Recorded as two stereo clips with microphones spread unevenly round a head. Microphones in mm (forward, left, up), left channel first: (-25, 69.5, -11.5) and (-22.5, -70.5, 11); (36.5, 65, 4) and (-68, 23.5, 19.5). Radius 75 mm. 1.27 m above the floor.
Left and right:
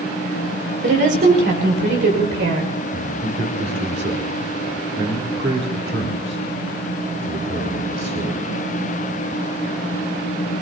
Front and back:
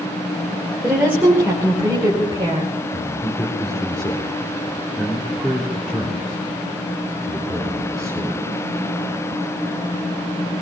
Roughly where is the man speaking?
Right.